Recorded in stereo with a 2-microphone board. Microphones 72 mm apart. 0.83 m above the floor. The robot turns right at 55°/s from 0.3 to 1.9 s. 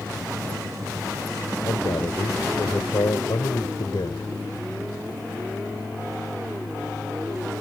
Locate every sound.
1.6 s a man speaking: 70° left (ahead or behind); by 4.3 s 80° left